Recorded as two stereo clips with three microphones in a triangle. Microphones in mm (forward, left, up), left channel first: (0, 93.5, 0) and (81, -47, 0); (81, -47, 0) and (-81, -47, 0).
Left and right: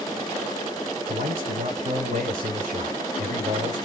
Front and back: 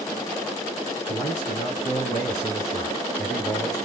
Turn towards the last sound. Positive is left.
turn(degrees=-65)